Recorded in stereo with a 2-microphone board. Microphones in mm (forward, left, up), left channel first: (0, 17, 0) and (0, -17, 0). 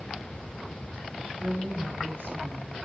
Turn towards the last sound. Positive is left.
turn(degrees=-80)